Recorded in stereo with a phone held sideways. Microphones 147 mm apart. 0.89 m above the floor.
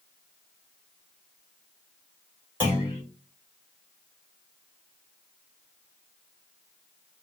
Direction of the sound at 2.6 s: 15° right (ahead or behind).